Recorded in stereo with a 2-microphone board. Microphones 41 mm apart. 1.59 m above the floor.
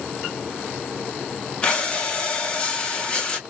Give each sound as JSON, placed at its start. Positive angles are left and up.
{"t": 1.6, "sound": "breathing", "side_deg": 25, "distance_m": 1.1}